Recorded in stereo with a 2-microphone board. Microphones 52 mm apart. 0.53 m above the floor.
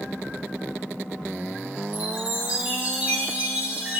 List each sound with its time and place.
1.9 s a chime: 35° right (ahead or behind), 2.5 m